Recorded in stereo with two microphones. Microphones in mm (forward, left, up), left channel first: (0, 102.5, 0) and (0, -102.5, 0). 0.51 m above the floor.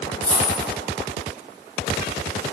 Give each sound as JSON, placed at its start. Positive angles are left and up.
{"t": 0.2, "sound": "a dropped coin", "side_deg": -25, "distance_m": 1.9}